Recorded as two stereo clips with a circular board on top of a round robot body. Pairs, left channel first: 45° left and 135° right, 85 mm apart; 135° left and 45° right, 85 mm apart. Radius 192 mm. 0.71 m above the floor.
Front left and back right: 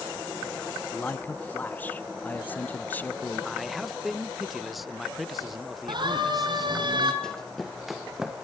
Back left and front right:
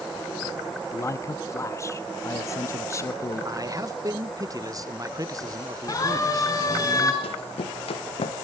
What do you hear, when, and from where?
0.9 s a man speaking: 105° left, 1.3 m
3.5 s a man speaking: 45° right, 1.2 m
5.9 s a siren: 175° right, 4.5 m; by 7.1 s 170° right, 4 m
7.2 s running footsteps: 130° left, 1.9 m; by 8.4 s 140° left, 2.5 m